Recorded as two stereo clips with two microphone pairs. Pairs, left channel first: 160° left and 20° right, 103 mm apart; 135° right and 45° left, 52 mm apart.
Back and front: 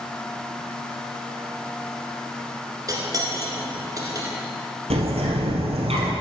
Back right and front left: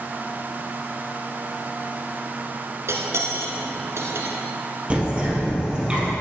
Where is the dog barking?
No dog barking in this recording.